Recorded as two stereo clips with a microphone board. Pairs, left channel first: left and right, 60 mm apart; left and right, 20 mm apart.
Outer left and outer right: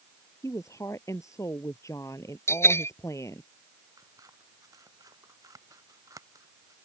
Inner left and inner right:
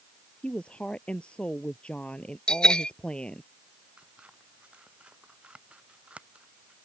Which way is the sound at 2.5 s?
45° left (ahead or behind).